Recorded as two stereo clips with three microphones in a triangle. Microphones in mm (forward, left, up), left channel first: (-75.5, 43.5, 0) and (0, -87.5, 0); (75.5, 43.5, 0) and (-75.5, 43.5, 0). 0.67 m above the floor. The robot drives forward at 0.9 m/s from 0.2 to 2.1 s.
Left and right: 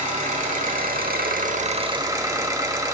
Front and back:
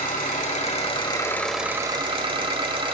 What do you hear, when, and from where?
0.0 s an engine running: 30° right, 1.4 m; by 2.9 s 130° right, 0.9 m